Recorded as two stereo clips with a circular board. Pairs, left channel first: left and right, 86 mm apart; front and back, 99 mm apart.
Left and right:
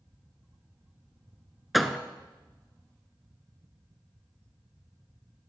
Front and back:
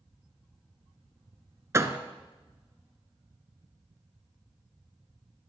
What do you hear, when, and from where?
1.7 s a door slam: straight behind, 0.8 m